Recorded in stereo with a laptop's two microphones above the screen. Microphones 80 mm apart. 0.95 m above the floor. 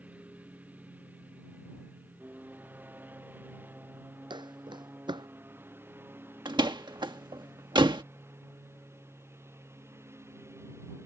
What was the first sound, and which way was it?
A lawn mower, 20° right (ahead or behind).